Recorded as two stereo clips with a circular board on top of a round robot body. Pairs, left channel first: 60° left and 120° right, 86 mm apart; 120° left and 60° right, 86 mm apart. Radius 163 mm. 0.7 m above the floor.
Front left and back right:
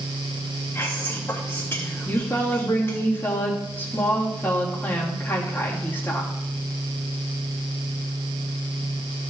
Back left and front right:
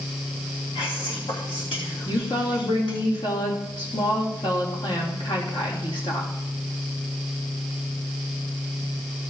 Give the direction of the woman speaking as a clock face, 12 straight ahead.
8 o'clock.